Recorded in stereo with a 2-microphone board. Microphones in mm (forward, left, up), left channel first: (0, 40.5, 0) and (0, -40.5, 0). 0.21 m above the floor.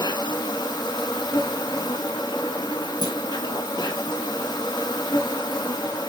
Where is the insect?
65° left (ahead or behind), 0.7 m.